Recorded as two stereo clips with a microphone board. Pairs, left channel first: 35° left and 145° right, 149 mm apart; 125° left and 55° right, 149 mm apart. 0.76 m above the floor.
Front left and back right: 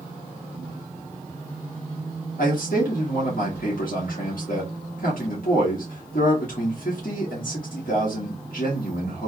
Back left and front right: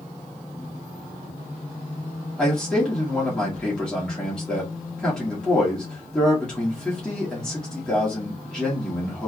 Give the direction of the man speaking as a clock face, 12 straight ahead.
11 o'clock.